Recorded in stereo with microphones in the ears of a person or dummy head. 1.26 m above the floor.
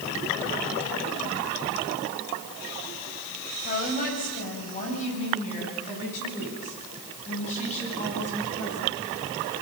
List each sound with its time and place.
3.6 s a woman speaking: 45° left (ahead or behind), 7.5 m; by 8.9 s 40° left (ahead or behind), 13.5 m